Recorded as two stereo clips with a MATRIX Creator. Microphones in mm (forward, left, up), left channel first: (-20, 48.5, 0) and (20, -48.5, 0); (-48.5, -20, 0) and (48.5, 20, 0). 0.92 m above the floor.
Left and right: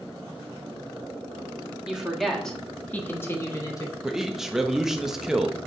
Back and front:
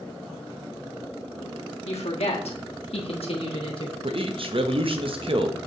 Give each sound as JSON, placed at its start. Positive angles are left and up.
{"t": 1.9, "sound": "a woman speaking", "azimuth_deg": -150, "distance_m": 1.5}
{"t": 4.0, "sound": "a man speaking", "azimuth_deg": 15, "distance_m": 0.8}